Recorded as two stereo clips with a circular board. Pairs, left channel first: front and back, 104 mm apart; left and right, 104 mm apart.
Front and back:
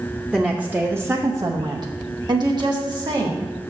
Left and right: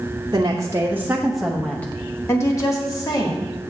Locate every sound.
0.3 s a woman speaking: 100° right, 0.8 m; by 3.4 s 140° left, 1.5 m